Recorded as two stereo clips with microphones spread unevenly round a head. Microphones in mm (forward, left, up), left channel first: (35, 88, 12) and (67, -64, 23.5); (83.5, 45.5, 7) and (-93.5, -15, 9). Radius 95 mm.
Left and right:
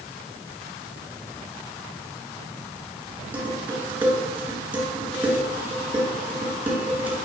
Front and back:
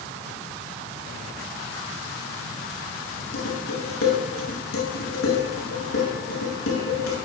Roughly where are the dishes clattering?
Ahead.